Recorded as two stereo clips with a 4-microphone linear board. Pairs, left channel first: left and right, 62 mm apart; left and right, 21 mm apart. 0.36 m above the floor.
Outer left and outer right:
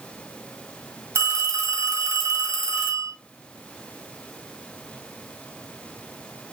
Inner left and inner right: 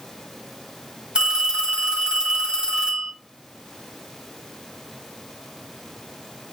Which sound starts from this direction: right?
A phone ringing, at 1.1 s.